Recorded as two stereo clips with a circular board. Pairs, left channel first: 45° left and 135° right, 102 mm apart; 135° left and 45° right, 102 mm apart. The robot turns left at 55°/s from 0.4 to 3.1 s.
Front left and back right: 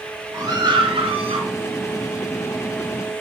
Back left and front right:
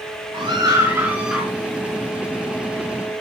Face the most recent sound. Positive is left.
turn(degrees=130)